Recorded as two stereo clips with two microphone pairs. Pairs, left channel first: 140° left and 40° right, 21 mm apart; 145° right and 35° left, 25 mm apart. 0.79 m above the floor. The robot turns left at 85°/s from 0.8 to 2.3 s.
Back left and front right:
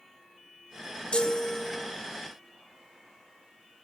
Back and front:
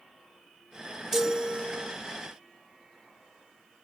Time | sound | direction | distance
1.1 | a chime | 115° left | ?